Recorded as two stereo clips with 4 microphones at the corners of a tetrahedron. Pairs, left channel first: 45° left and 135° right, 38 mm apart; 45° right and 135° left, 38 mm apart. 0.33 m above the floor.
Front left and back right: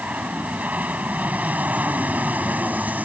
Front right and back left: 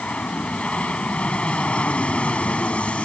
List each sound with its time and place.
0.0 s an aircraft: 100° right